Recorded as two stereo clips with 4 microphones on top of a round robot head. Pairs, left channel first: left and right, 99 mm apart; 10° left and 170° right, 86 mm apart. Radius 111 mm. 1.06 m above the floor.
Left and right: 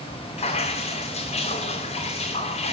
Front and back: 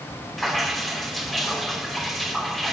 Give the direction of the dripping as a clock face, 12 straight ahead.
9 o'clock.